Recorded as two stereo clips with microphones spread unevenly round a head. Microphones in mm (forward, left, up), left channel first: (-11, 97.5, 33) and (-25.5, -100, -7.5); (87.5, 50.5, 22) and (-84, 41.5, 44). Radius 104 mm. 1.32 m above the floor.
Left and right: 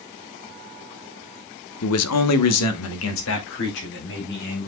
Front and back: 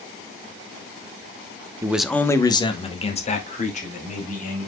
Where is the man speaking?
105° left, 1.1 m; by 4.7 s 45° left, 4.5 m.